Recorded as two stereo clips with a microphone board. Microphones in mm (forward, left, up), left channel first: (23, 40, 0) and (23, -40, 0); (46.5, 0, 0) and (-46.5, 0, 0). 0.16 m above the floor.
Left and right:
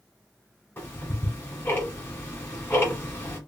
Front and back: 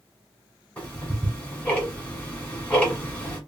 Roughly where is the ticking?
Ahead left.